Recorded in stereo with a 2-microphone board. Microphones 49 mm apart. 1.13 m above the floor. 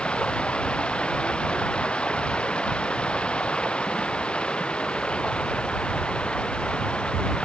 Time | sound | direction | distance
0.0 | running water | 25° left (ahead or behind) | ?